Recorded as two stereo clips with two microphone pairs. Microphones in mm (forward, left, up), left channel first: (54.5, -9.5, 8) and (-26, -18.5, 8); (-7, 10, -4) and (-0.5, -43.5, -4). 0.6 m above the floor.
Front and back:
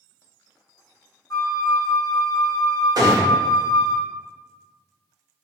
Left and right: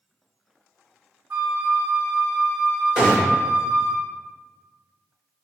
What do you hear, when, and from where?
1.3 s a flute: 45° right, 0.9 m
3.0 s a gunshot: 155° right, 1.6 m